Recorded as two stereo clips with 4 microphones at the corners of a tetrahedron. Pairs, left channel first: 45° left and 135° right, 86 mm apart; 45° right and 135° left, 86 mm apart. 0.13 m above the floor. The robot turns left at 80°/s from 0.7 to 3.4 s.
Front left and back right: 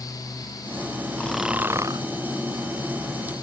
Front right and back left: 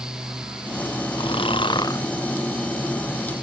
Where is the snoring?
30° right; by 2.0 s 100° right.